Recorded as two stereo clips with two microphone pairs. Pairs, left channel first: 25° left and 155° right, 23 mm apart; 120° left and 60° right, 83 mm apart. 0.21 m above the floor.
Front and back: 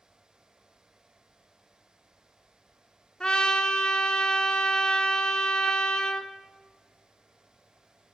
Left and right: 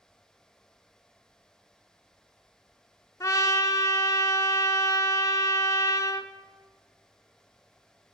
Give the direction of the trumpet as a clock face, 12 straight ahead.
9 o'clock.